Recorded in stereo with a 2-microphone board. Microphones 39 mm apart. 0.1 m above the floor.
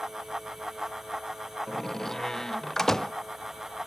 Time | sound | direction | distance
1.7 | a door slam | 10° left (ahead or behind) | ?